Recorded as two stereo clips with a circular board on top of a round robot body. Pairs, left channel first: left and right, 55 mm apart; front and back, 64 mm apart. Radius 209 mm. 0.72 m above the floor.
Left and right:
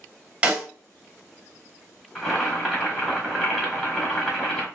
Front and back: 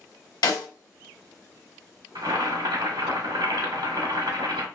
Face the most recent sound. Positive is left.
turn(degrees=180)